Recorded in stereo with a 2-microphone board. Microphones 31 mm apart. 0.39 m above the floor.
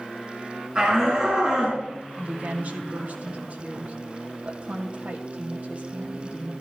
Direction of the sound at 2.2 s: 55° right (ahead or behind).